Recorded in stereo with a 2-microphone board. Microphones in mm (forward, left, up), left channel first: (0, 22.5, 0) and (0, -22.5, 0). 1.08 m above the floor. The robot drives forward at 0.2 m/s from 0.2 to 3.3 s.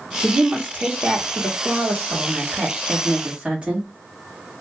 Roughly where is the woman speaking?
Right.